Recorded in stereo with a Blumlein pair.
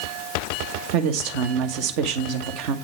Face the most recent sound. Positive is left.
turn(degrees=-40)